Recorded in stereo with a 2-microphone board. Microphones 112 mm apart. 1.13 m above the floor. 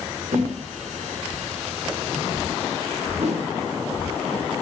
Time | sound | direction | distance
0.3 | a whoosh | 80° right | 4.5 m